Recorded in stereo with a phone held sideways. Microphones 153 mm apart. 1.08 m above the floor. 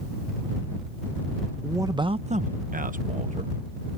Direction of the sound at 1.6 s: 15° right (ahead or behind).